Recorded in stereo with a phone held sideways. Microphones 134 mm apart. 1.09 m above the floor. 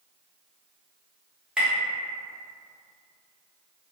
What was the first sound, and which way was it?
Tapping, 5° right (ahead or behind).